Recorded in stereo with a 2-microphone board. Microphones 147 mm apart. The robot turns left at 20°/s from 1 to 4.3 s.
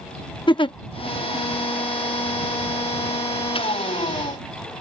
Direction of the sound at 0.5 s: 35° left (ahead or behind).